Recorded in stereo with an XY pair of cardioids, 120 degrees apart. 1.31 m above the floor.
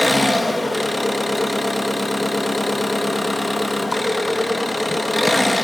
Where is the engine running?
5° left, 1.2 m.